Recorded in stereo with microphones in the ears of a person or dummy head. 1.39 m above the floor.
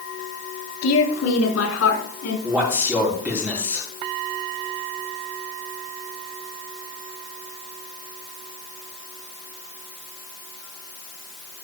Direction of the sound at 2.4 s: 10° right (ahead or behind).